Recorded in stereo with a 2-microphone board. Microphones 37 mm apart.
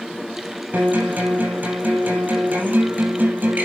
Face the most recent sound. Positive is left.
turn(degrees=-55)  # may be behind; listen again after turning